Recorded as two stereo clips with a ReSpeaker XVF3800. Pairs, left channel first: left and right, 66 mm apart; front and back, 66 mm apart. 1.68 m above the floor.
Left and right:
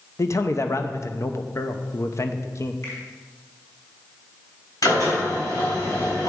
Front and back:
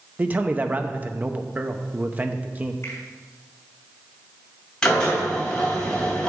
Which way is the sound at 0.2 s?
120° left.